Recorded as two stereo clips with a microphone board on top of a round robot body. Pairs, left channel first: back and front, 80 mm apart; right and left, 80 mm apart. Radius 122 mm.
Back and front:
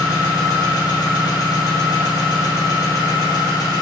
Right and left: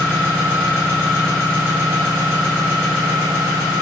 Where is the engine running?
145° left, 1.5 m.